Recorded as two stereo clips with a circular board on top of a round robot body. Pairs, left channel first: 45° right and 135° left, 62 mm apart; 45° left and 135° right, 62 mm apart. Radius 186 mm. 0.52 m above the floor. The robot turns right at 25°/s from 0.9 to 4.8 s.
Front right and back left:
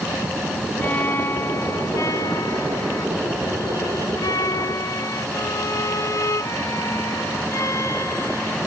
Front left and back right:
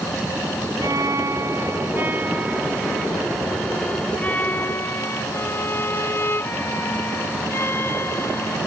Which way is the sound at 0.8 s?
105° right.